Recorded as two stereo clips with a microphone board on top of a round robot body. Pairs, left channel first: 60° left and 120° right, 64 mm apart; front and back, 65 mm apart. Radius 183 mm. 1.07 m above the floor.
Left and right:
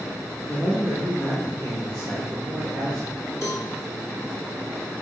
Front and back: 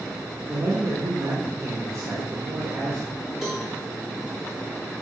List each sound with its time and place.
0.5 s a man speaking: 140° left, 2.5 m; by 3.1 s 135° left, 5 m
3.4 s a cowbell: 100° left, 4 m